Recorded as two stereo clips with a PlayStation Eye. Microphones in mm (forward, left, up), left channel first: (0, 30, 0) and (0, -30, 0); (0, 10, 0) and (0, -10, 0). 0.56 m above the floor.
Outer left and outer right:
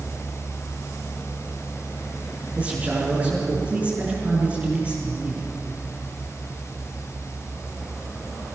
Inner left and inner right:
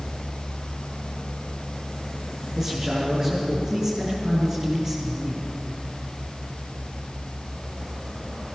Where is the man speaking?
25° right (ahead or behind), 7 m.